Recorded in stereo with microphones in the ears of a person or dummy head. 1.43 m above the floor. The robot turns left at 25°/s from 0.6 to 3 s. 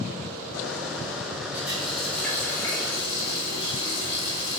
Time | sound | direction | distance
1.5 | a running tap | 170° right | 2.0 m